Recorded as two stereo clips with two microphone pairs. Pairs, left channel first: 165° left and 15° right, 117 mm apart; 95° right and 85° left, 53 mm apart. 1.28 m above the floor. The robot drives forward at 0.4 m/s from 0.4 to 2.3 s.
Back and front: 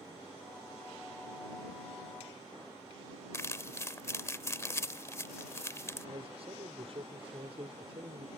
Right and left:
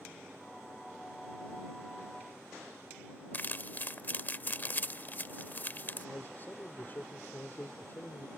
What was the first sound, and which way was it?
Crumpling, 135° right.